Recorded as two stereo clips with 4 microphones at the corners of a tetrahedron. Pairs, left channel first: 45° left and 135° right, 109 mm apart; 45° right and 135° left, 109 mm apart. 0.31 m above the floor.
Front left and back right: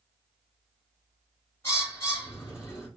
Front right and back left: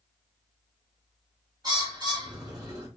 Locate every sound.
1.6 s a bird: 100° left, 1.4 m